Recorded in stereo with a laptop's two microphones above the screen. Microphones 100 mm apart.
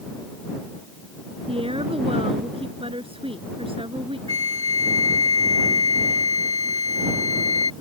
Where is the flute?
80° right.